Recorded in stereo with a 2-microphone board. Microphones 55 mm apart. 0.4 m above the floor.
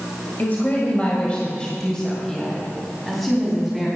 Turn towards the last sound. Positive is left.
turn(degrees=0)  # may be behind; listen again after turning